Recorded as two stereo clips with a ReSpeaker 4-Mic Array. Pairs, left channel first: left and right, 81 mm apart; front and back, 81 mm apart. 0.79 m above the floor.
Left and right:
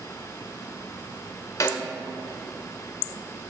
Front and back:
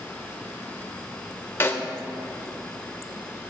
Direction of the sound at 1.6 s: 50° left.